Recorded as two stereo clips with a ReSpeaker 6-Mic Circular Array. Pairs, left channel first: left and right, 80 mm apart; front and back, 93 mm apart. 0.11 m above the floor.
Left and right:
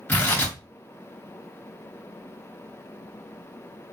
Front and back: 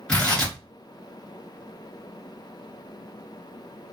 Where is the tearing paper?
65° left, 1.8 m.